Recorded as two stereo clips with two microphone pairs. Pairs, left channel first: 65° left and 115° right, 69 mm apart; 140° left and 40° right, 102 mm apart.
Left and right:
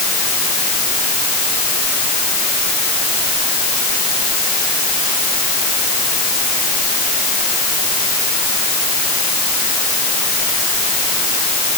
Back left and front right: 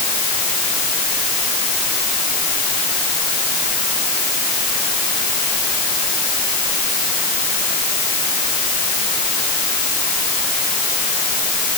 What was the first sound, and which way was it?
Only background noise.